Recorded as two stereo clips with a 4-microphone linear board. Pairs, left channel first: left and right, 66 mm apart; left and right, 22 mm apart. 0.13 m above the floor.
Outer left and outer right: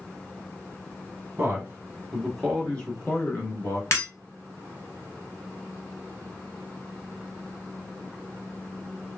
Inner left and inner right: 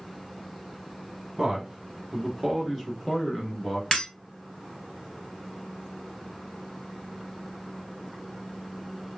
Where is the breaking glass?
50° left (ahead or behind), 1.4 m.